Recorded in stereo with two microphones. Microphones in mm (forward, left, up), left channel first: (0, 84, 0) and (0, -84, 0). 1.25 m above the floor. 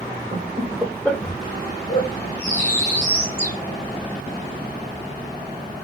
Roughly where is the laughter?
Right.